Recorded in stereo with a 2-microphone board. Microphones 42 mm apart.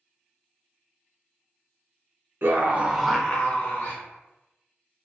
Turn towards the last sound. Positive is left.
turn(degrees=50)  # may be behind; listen again after turning